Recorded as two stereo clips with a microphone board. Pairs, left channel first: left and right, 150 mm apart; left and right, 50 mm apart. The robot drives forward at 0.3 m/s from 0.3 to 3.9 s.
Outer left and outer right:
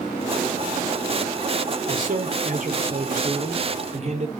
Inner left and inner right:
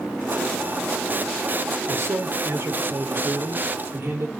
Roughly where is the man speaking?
Right.